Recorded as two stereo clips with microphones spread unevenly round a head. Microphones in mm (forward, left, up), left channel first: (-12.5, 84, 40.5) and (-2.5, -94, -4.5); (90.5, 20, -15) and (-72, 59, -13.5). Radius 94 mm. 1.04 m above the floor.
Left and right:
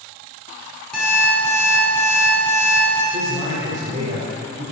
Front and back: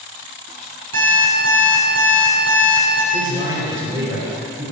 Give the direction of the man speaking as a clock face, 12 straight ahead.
4 o'clock.